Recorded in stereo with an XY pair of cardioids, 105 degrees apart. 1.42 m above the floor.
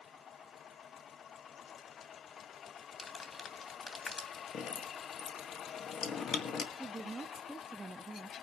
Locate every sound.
3.0 s crumpling: 35° left, 2.5 m
4.5 s dripping: 65° left, 1.7 m
6.8 s a woman speaking: 25° right, 0.5 m